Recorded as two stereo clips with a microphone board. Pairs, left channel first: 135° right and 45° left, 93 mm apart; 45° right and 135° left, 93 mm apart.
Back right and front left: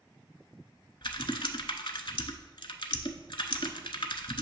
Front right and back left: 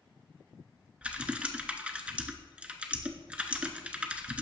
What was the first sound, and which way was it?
Typing on a keyboard, 150° right.